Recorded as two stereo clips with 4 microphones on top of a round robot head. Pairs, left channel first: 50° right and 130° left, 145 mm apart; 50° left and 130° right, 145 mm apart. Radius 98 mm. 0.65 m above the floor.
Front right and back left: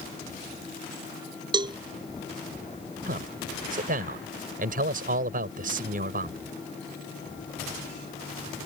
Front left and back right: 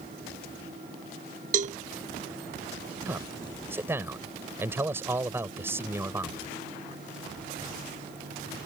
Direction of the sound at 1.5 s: 170° right.